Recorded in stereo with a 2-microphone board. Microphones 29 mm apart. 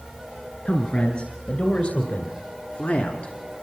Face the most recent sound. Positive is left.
turn(degrees=60)  # may be behind; listen again after turning